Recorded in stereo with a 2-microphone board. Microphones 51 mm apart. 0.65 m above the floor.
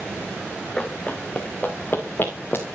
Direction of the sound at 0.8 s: 15° left (ahead or behind).